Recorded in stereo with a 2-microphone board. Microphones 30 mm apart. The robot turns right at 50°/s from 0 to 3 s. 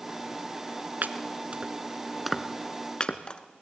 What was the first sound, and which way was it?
Chopping, 65° right (ahead or behind).